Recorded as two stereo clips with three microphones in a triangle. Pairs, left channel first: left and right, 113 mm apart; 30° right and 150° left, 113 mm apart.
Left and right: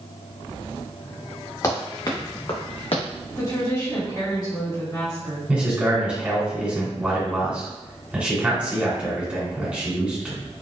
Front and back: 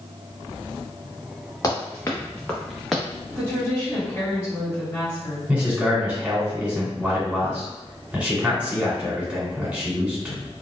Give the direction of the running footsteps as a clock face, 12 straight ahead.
11 o'clock.